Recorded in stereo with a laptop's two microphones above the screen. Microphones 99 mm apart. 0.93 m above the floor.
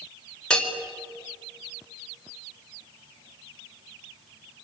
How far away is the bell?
About 4 m.